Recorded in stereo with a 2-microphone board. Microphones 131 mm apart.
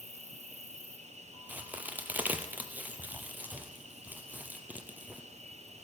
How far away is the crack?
About 1.1 m.